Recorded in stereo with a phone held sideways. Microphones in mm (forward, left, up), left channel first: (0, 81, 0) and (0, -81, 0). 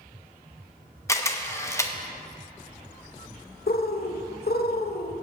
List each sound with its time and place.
1.1 s a camera shutter: 20° left (ahead or behind), 0.9 m
3.7 s a bird: 75° left (ahead or behind), 0.8 m